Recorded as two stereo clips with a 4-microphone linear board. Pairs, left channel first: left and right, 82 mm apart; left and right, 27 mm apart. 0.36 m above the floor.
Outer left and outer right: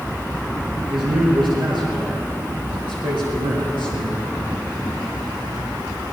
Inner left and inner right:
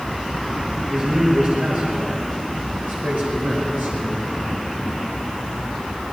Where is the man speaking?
70° right (ahead or behind), 6 m; by 4.2 s 80° right, 6 m.